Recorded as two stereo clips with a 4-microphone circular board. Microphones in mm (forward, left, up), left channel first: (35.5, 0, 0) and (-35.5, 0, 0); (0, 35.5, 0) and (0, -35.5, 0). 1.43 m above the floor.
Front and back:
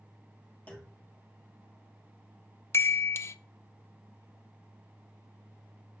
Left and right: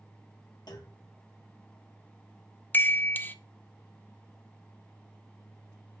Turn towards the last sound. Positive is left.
turn(degrees=35)